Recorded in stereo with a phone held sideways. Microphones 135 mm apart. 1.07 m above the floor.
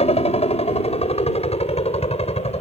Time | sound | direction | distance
0.0 | a helicopter | 50° left (ahead or behind) | ?